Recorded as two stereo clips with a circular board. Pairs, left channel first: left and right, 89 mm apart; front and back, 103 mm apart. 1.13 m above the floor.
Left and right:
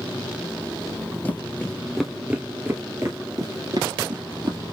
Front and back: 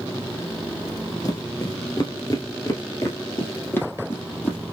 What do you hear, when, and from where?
1.2 s footsteps: 30° left, 1.4 m; by 4.6 s 70° right, 2.5 m